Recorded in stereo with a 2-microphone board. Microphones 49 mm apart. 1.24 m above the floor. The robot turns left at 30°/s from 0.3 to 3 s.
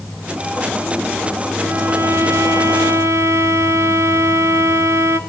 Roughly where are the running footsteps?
No running footsteps in this recording.